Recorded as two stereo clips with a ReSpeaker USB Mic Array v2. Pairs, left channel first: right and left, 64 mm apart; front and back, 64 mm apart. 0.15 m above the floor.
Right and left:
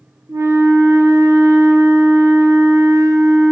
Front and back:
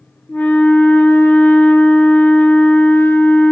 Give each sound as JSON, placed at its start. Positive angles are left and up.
{"t": 0.3, "sound": "a flute", "azimuth_deg": 60, "distance_m": 0.6}